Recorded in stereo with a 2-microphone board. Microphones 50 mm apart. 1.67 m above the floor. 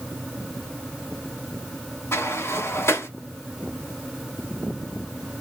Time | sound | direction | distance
2.1 | a sliding door | 65° left (ahead or behind) | 1.8 m